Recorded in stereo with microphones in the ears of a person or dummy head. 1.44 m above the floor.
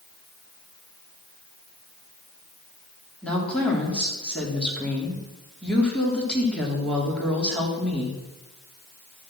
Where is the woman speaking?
10° left (ahead or behind), 3.5 m.